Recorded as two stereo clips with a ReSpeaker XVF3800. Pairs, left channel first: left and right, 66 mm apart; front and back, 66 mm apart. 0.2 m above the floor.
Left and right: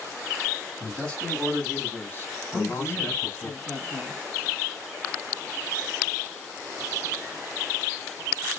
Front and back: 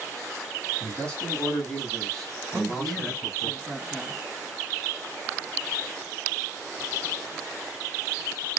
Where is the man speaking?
20° left, 1.6 m; by 3.5 s 80° left, 2 m.